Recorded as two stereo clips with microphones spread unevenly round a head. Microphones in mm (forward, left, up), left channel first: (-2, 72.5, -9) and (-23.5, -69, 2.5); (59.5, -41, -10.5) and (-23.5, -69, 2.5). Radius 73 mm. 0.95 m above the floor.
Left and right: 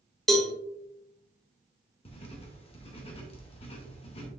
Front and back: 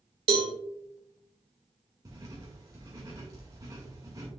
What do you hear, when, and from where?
0.3 s a cowbell: 165° left, 1.4 m
2.0 s writing: 130° left, 1.6 m